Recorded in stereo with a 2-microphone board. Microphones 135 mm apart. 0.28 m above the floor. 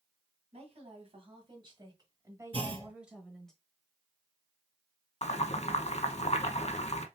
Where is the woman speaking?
50° right (ahead or behind), 2 m; by 3.5 s 5° left (ahead or behind), 1.2 m.